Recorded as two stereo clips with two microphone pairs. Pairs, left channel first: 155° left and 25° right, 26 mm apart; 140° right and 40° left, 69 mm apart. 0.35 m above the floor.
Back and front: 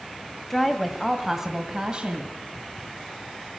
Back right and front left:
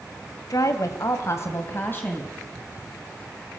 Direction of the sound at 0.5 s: 130° right.